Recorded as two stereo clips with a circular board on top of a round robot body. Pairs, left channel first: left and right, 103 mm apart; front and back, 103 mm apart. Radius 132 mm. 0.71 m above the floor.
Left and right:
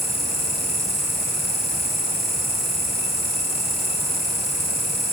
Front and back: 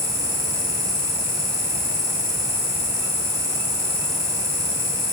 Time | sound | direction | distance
0.0 | an insect | straight ahead | 4 m